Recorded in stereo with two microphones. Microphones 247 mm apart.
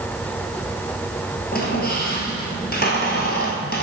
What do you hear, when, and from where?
1.5 s a squeak: 40° left (ahead or behind), 1.5 m